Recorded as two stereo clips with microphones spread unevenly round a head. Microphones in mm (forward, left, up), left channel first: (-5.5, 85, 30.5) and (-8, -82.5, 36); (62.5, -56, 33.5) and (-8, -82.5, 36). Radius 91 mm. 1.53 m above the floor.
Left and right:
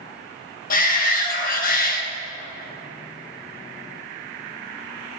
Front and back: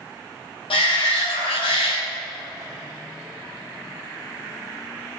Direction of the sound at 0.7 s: 45° left.